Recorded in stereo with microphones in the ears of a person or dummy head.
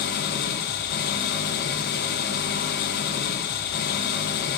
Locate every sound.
0.0 s an engine running: 50° left (ahead or behind), 0.9 m